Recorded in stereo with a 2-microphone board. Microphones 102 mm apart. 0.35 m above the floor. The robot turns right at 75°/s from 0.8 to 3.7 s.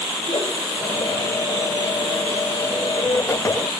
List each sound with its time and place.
0.2 s a whoosh: 65° left (ahead or behind), 4 m